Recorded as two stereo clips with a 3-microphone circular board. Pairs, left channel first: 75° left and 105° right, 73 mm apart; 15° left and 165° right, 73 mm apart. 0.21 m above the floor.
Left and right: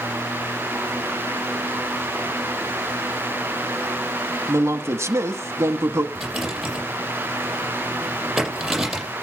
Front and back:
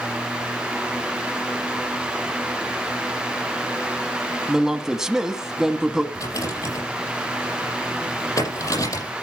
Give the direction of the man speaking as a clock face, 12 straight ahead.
3 o'clock.